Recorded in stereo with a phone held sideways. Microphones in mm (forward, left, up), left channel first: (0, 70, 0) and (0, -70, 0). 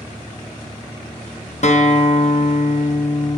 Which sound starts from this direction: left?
A guitar, at 1.6 s.